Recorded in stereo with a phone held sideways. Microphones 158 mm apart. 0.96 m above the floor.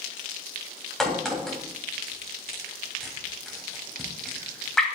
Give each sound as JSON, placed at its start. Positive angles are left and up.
{"t": 1.0, "sound": "a crack", "side_deg": 5, "distance_m": 3.0}